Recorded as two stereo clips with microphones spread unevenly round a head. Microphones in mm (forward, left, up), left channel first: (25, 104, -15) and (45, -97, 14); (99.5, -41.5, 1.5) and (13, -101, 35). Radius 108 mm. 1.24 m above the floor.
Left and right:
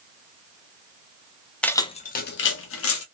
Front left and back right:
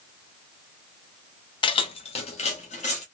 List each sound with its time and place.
1.6 s keys jangling: straight ahead, 0.5 m; by 3.0 s 95° left, 0.9 m